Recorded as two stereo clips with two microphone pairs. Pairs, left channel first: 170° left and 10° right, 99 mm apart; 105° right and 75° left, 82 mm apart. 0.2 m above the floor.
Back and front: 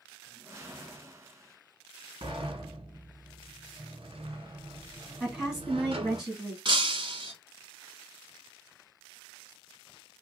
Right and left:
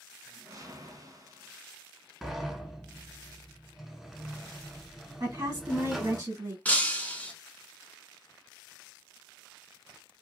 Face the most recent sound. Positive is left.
turn(degrees=-35)